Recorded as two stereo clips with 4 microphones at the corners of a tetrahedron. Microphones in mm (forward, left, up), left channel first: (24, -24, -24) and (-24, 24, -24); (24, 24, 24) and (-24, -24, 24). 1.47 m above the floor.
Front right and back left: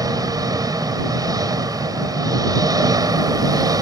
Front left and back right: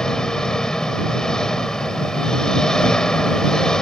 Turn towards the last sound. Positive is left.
turn(degrees=125)